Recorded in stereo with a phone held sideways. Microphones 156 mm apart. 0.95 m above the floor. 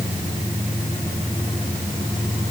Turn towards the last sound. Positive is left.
No sound to turn to.